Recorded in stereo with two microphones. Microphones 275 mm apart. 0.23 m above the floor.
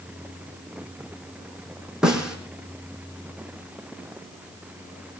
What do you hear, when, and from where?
2.0 s a snare drum: centre (ahead or behind), 3.5 m